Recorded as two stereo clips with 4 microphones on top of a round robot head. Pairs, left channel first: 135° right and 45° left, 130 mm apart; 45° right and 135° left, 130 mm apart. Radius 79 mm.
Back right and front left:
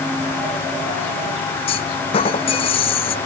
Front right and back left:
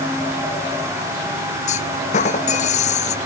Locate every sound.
1.7 s a clunk: 85° right